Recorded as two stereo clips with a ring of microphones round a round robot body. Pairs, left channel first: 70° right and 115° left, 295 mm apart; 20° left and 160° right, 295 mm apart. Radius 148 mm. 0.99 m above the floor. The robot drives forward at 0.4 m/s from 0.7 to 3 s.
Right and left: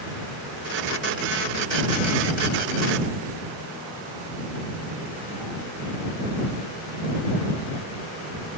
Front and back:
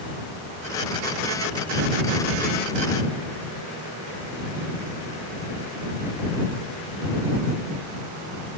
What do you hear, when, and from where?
Only background noise.